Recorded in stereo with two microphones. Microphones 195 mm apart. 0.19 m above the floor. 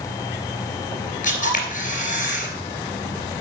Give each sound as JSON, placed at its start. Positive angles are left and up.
{"t": 1.2, "sound": "a camera shutter", "side_deg": 45, "distance_m": 2.5}